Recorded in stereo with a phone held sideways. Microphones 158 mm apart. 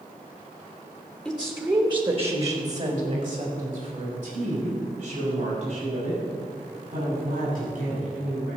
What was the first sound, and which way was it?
A woman speaking, 5° left (ahead or behind).